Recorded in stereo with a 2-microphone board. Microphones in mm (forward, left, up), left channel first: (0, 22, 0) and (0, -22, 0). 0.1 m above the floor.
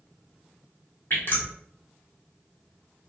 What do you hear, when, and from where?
1.1 s dripping: 50° left (ahead or behind), 1.2 m